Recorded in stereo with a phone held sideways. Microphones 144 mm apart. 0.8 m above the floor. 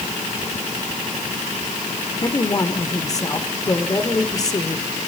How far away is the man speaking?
About 1.9 m.